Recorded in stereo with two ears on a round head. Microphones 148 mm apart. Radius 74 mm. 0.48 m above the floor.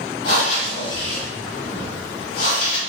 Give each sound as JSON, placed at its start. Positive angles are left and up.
{"t": 0.2, "sound": "breathing", "side_deg": 50, "distance_m": 0.8}